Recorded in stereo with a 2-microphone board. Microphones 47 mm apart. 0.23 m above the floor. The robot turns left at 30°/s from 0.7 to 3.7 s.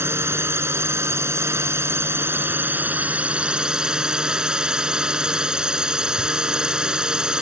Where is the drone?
75° right; by 7.4 s 165° right.